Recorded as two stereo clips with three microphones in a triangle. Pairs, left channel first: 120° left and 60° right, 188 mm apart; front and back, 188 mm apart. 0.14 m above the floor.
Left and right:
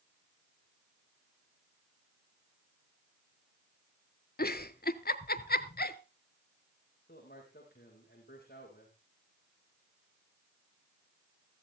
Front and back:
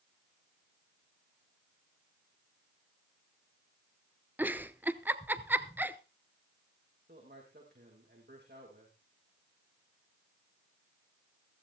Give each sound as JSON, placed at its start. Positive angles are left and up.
{"t": 4.4, "sound": "a giggle", "azimuth_deg": 100, "distance_m": 0.6}
{"t": 7.1, "sound": "a man speaking", "azimuth_deg": 155, "distance_m": 6.0}